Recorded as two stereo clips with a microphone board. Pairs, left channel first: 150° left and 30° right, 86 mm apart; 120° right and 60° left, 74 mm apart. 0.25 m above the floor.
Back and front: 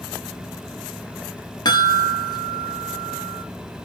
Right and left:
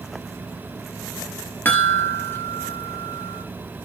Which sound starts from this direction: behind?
A chime, at 1.6 s.